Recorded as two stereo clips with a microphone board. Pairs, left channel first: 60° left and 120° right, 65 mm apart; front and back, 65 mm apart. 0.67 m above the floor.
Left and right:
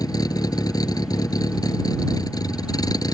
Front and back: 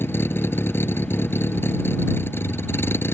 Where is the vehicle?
50° left.